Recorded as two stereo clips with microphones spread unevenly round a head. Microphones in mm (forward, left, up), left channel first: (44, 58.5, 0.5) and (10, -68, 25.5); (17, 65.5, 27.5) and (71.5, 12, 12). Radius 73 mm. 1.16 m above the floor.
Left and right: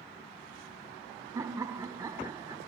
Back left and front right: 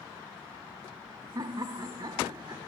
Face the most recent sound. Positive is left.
turn(degrees=-35)